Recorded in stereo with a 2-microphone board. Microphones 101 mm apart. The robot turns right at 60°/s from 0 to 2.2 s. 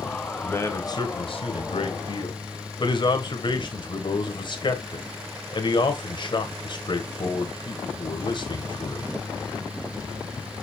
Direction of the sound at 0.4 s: 15° left.